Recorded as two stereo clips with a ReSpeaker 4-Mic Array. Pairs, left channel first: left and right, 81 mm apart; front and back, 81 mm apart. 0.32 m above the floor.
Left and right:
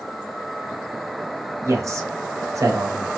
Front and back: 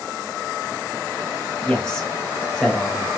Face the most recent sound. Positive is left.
turn(degrees=-75)